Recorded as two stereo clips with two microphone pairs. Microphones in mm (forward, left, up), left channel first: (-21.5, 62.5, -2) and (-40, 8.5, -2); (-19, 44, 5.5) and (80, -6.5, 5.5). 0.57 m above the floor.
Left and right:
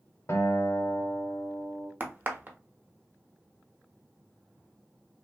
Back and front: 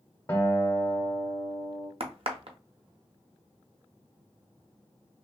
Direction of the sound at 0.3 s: 85° left.